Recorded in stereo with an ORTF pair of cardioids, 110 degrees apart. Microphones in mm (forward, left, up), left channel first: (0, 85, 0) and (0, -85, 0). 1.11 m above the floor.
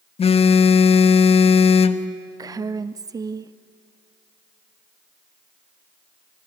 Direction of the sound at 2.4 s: 20° right.